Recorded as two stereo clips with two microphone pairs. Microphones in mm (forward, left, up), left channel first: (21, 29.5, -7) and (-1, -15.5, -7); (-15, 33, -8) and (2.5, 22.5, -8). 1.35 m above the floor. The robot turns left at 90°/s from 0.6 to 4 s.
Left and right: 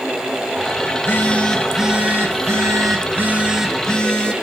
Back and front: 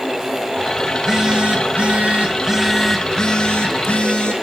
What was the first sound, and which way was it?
A phone buzzing, 45° left.